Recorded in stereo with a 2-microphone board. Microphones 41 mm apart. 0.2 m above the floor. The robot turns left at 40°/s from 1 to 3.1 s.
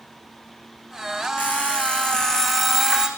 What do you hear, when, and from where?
1.4 s an alarm clock: 50° left, 8 m; by 3.1 s 20° right, 8 m